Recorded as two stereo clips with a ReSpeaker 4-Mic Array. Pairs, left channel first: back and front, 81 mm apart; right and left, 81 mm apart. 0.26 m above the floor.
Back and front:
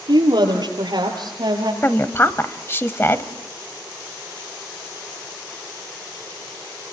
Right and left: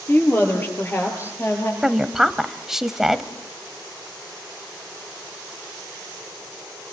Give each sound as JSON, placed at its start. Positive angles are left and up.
{"t": 0.1, "sound": "a woman speaking", "azimuth_deg": -25, "distance_m": 6.0}
{"t": 1.8, "sound": "a woman speaking", "azimuth_deg": 170, "distance_m": 1.1}